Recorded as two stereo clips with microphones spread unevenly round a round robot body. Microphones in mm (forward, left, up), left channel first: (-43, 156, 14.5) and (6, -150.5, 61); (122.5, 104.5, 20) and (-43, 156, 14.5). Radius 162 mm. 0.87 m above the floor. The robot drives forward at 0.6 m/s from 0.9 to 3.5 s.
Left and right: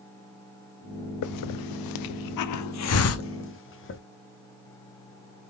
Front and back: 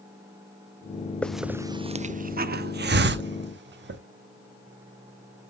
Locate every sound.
1.2 s a hiss: 65° left, 0.7 m; by 4.0 s 150° left, 1.3 m